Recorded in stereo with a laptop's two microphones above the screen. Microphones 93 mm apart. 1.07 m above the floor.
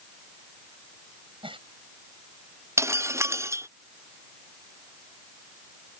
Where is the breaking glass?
30° right (ahead or behind).